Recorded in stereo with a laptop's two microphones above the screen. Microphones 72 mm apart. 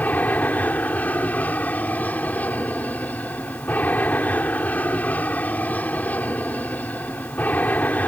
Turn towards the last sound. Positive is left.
turn(degrees=20)  # may be behind; listen again after turning